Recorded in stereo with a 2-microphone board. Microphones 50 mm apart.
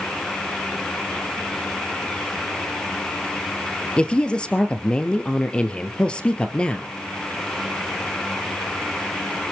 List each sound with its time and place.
4.0 s a woman speaking: 20° left (ahead or behind), 2 m